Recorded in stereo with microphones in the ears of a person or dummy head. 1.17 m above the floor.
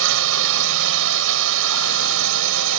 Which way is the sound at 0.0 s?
70° right (ahead or behind).